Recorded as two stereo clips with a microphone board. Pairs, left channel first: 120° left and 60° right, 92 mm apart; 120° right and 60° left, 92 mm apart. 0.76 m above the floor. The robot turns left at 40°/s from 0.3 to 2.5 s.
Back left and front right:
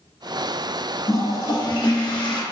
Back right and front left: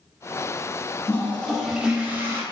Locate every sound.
1.1 s a toilet flushing: 170° left, 0.8 m; by 2.4 s 120° left, 0.8 m